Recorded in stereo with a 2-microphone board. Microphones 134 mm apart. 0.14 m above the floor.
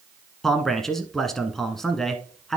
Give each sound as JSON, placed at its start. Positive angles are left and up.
{"t": 0.4, "sound": "a man speaking", "side_deg": 5, "distance_m": 1.1}